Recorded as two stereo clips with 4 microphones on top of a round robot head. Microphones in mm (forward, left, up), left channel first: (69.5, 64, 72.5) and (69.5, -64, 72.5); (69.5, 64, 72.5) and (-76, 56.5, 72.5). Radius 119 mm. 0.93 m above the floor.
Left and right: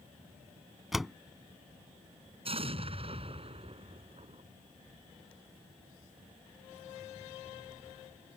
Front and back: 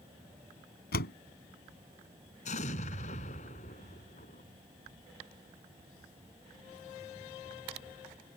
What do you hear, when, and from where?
0.9 s a door slam: straight ahead
2.5 s an explosion: 50° right